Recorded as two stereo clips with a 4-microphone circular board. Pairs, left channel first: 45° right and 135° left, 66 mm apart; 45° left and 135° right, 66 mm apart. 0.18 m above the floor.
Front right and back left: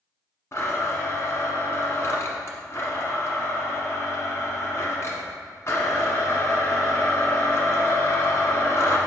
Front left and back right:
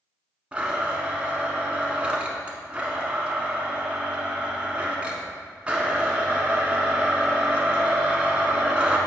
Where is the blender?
70° right, 1.1 m.